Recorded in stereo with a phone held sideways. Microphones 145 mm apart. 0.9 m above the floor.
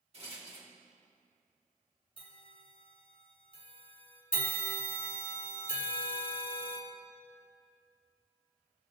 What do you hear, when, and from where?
0.1 s a rattle: 45° right (ahead or behind), 2 m
2.2 s a bell: 40° left (ahead or behind), 1.8 m
4.3 s a bell: 70° left (ahead or behind), 1.8 m